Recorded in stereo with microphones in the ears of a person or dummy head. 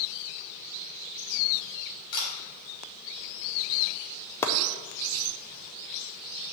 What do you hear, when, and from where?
2.1 s a camera shutter: 55° left (ahead or behind), 3 m
4.4 s chopping: 15° left (ahead or behind), 0.6 m